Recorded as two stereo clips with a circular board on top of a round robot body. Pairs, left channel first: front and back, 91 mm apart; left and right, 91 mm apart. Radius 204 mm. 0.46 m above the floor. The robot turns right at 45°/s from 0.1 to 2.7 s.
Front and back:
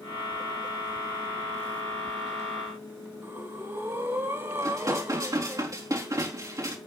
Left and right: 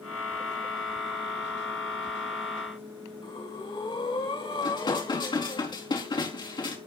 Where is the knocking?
I don't hear knocking.